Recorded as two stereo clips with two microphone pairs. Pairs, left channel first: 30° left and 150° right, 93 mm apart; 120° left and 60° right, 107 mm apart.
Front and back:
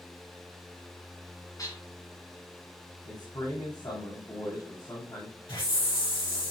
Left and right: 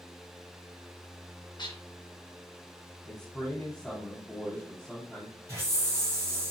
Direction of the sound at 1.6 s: 75° left.